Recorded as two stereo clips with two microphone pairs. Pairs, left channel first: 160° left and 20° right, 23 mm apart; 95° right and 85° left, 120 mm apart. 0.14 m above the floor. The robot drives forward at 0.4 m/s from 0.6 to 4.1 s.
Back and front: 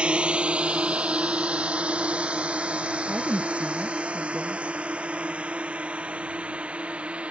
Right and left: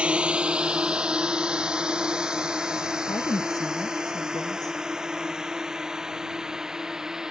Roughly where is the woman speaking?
Ahead right.